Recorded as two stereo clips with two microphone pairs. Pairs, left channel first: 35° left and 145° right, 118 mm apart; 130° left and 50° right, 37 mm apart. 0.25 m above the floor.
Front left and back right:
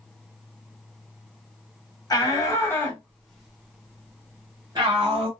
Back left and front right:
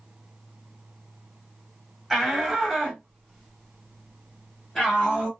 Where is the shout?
30° left, 1.3 m; by 5.3 s 155° right, 1.5 m.